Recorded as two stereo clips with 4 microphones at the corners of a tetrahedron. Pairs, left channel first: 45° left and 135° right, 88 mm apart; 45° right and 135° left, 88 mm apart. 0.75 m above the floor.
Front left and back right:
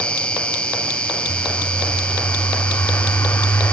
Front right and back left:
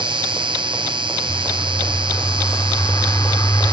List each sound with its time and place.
0.0 s an insect: 125° left
1.3 s a bird: 10° right